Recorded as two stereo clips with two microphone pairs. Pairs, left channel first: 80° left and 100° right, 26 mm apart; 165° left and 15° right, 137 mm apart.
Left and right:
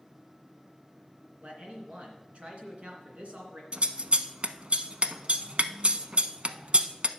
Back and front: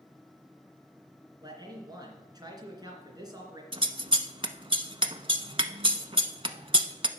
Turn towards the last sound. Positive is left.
turn(degrees=-65)